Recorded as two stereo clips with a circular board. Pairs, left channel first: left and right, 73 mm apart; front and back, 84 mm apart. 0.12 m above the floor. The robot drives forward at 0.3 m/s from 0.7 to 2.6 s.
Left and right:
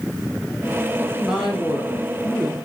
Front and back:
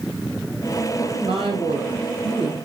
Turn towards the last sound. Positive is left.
turn(degrees=180)